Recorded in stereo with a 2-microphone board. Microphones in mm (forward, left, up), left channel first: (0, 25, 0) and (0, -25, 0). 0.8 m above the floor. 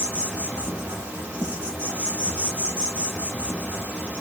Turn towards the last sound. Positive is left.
turn(degrees=-25)  # may be behind; listen again after turning